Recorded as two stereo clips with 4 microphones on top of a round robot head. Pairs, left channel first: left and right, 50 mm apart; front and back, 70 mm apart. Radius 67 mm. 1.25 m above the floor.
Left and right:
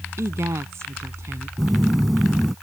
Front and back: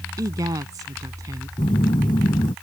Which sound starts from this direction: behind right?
A woman speaking, at 0.2 s.